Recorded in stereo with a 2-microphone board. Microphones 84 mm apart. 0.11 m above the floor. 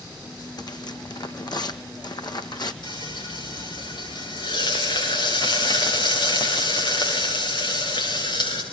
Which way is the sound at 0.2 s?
60° left (ahead or behind).